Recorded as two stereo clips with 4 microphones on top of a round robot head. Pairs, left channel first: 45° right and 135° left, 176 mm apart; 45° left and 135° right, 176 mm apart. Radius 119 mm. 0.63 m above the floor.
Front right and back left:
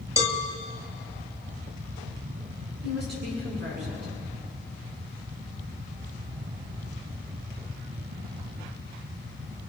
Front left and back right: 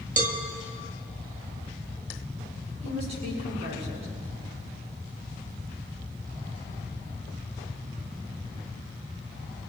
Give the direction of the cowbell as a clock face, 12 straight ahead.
5 o'clock.